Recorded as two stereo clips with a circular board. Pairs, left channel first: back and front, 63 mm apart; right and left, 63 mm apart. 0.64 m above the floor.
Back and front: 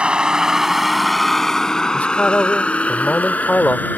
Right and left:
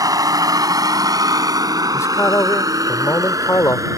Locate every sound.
0.0 s a vehicle: 75° left; by 4.0 s 120° left
1.9 s a man speaking: 115° right